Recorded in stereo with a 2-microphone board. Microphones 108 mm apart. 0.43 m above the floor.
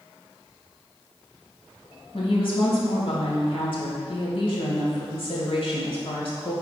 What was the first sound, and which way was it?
A woman speaking, 60° left (ahead or behind).